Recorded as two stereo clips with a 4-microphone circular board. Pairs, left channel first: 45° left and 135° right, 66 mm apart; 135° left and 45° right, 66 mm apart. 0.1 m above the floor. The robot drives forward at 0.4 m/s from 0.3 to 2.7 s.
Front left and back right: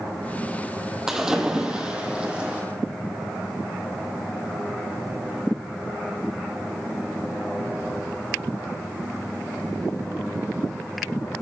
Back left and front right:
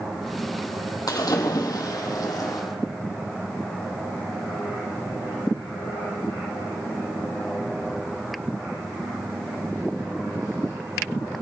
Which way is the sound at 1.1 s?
145° left.